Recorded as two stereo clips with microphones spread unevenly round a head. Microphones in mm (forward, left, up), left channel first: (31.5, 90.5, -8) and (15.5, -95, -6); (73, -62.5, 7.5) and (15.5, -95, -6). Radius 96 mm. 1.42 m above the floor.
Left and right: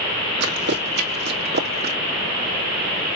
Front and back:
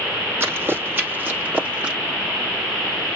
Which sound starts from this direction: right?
Running footsteps, at 0.4 s.